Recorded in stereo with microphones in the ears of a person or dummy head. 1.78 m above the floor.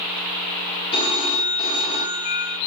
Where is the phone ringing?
25° left (ahead or behind), 1.6 m.